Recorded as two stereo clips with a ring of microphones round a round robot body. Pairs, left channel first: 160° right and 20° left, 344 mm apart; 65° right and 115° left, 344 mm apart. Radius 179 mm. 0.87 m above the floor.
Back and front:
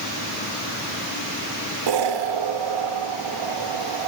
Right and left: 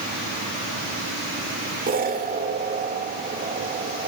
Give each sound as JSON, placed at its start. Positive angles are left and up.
{"t": 1.9, "sound": "an explosion", "azimuth_deg": 45, "distance_m": 1.6}